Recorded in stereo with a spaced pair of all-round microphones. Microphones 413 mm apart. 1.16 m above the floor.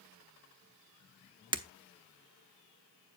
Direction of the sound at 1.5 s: 10° right (ahead or behind).